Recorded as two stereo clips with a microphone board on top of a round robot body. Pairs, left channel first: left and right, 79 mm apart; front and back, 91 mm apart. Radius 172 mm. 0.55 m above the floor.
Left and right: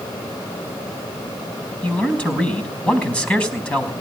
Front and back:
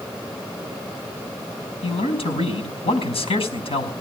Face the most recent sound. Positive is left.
turn(degrees=15)